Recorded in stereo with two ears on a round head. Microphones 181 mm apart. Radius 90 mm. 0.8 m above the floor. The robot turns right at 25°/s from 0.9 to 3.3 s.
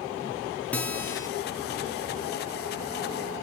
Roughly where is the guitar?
Centre.